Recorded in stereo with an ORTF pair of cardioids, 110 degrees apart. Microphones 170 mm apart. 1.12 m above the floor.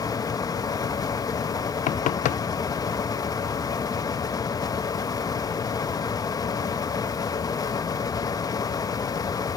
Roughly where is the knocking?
Ahead left.